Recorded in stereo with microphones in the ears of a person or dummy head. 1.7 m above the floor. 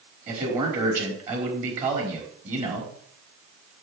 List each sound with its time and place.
0.3 s a man speaking: 40° right (ahead or behind), 4.5 m